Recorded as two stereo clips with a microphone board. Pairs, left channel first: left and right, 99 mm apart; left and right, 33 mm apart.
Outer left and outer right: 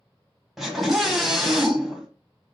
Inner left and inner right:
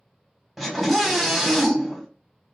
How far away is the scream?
About 1.0 m.